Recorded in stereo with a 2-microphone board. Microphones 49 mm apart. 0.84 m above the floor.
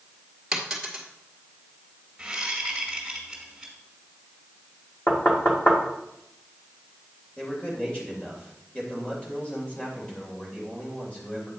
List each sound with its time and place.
0.5 s a dropped coin: 10° right (ahead or behind), 1.6 m
2.2 s a whoosh: 10° right (ahead or behind), 2 m
5.1 s knocking: 30° left (ahead or behind), 1.5 m
7.4 s a man speaking: 25° left (ahead or behind), 2.5 m